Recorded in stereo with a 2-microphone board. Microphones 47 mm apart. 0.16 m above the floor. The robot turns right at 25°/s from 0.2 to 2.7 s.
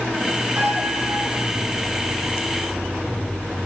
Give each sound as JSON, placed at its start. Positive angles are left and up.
{"t": 0.6, "sound": "a piano", "side_deg": -60, "distance_m": 1.0}